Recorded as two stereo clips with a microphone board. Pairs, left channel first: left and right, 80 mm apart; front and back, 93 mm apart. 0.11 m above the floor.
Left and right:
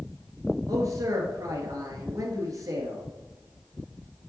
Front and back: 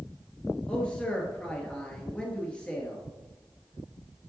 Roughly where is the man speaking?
Right.